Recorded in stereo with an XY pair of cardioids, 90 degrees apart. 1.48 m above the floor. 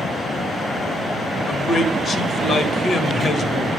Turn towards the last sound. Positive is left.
turn(degrees=55)